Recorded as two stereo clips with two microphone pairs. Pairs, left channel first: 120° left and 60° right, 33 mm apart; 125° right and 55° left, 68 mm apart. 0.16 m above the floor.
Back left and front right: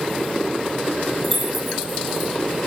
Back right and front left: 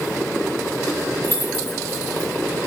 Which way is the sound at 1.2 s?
30° left.